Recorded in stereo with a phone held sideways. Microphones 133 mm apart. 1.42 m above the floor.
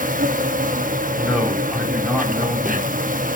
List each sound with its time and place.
0.0 s an insect: 80° right, 1.5 m
1.1 s a man speaking: 10° right (ahead or behind), 7.5 m